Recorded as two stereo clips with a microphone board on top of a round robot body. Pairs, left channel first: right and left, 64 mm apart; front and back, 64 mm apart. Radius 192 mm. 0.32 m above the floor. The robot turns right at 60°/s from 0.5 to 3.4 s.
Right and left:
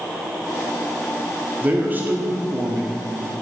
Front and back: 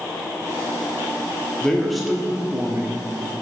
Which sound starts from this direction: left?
A man speaking, at 1.6 s.